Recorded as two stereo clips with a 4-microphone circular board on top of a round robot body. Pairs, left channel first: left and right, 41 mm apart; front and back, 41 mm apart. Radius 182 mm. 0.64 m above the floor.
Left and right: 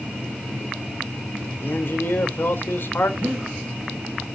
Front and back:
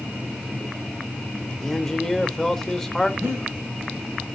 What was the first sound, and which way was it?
A man speaking, 75° left.